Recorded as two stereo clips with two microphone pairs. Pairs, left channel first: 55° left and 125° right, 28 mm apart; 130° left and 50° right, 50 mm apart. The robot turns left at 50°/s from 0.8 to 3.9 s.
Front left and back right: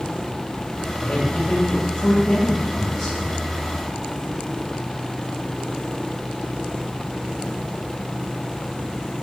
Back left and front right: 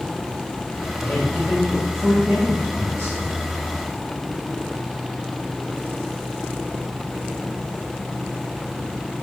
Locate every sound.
1.0 s a man speaking: 100° left, 2.5 m; by 3.6 s 30° right, 2.5 m